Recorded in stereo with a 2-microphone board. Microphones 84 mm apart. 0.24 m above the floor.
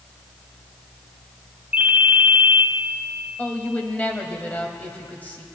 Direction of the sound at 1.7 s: 15° right (ahead or behind).